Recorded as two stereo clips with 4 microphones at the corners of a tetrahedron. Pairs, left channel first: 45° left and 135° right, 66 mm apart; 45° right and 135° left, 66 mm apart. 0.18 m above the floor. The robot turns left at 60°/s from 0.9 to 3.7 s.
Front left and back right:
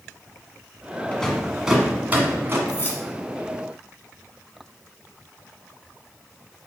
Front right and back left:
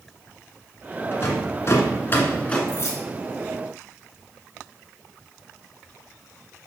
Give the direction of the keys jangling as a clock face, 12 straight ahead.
12 o'clock.